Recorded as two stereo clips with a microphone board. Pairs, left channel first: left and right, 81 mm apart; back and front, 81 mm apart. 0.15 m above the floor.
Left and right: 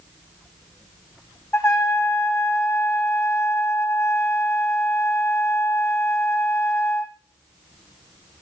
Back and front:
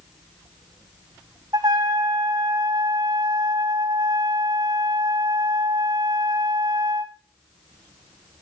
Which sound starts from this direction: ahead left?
A trumpet, at 1.5 s.